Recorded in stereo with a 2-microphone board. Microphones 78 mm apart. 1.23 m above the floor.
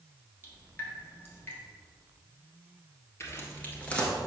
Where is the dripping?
25° left (ahead or behind), 1.3 m.